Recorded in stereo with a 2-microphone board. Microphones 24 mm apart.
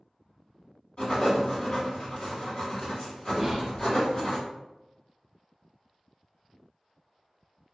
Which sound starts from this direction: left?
Writing, at 1.0 s.